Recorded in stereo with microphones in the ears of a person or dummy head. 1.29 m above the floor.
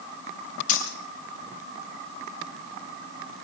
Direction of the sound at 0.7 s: 45° left (ahead or behind).